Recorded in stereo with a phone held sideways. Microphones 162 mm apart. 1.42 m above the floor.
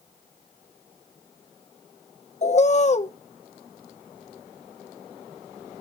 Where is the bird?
45° left (ahead or behind), 0.7 m.